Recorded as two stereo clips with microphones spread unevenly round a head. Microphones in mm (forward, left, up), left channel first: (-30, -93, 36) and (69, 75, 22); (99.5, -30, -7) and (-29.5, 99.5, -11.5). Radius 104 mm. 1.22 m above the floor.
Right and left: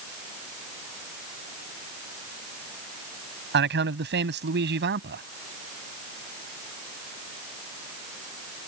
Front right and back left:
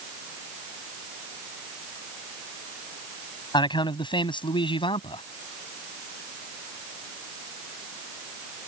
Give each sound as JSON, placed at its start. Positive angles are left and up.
{"t": 3.5, "sound": "a man speaking", "azimuth_deg": 20}